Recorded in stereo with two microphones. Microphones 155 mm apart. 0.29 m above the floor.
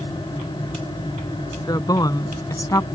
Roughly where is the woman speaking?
Left.